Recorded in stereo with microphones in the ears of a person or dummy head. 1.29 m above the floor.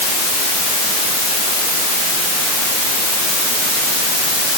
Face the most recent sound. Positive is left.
No sound to turn to.